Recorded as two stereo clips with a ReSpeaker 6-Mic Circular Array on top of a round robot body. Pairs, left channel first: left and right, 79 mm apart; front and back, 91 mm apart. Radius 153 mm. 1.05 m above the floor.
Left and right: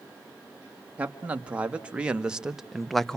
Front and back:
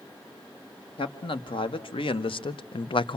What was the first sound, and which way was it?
A man speaking, 20° right.